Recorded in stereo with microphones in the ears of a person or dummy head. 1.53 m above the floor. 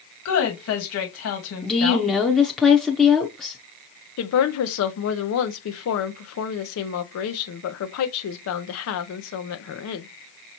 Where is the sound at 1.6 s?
5° left (ahead or behind), 0.6 m.